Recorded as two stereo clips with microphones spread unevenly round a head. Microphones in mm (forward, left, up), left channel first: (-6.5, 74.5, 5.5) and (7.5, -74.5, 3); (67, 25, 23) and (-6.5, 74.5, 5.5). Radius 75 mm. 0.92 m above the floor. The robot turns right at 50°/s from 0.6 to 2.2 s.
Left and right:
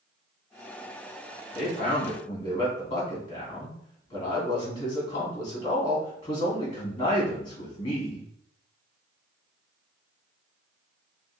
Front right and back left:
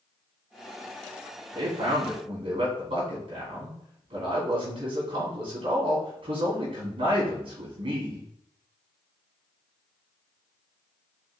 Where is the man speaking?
125° left, 2.5 m; by 8.3 s 155° left, 2.5 m.